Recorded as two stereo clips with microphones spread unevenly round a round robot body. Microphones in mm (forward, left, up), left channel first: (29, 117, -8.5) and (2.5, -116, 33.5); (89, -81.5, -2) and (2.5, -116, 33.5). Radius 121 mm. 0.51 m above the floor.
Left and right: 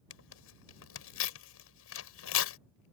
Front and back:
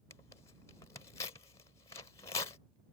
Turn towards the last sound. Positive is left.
turn(degrees=75)